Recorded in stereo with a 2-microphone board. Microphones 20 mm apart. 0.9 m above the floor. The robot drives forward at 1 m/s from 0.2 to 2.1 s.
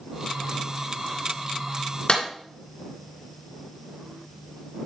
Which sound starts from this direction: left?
A clap, at 2.1 s.